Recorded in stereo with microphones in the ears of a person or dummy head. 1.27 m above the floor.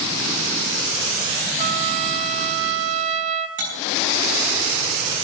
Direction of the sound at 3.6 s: 40° right (ahead or behind).